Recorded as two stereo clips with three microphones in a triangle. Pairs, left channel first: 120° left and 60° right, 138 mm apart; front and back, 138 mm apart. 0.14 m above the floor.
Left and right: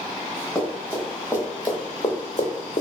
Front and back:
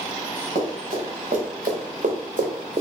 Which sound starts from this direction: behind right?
Running footsteps, at 0.6 s.